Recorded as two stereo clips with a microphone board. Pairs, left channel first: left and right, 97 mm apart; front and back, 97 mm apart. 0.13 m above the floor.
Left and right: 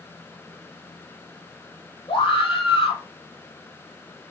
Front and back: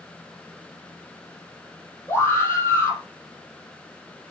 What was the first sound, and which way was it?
A scream, 65° left.